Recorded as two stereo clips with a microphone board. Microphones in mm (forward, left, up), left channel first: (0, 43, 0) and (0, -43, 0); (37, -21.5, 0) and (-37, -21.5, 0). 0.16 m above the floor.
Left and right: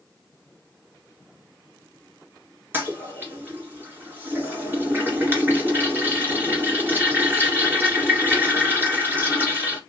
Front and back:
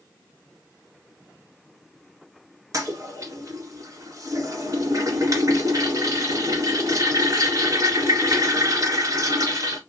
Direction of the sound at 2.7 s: 150° right.